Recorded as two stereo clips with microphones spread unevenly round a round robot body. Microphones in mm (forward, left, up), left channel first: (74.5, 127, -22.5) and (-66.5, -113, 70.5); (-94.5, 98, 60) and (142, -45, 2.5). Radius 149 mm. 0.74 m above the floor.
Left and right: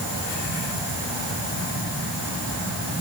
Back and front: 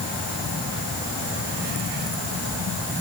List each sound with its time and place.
Only background noise.